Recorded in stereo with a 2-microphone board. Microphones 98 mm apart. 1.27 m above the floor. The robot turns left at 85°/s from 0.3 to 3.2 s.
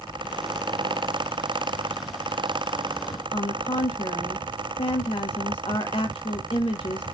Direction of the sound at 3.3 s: 75° left (ahead or behind).